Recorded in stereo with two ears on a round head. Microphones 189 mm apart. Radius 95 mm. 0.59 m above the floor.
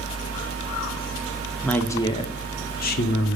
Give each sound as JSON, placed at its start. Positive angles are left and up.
{"t": 1.6, "sound": "a woman speaking", "side_deg": 5, "distance_m": 0.8}